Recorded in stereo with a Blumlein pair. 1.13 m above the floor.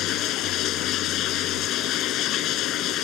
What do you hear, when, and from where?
0.0 s running water: 35° left